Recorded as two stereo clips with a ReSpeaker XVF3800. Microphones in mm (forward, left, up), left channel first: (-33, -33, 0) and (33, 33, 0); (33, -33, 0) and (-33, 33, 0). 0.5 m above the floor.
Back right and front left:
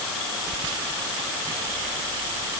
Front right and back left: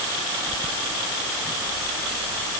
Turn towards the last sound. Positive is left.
No sound to turn to.